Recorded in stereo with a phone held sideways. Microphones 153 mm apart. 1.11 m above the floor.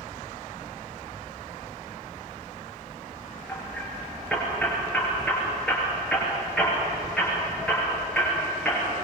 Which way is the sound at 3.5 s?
5° left (ahead or behind).